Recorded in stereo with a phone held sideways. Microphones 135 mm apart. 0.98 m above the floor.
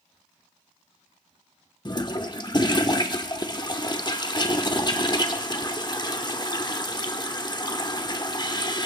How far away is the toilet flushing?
About 1.0 m.